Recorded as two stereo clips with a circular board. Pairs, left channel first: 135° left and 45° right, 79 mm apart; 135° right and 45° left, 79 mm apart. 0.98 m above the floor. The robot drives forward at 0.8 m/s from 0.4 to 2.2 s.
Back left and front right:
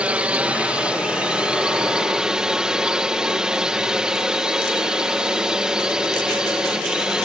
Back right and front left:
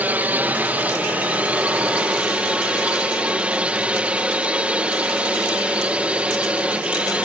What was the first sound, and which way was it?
A drone, 10° left.